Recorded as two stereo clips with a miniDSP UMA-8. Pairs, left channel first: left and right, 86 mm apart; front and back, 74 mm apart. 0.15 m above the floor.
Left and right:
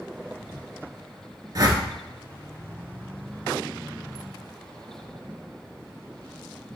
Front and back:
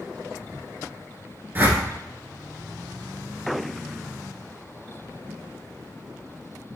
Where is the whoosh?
125° right, 0.9 m.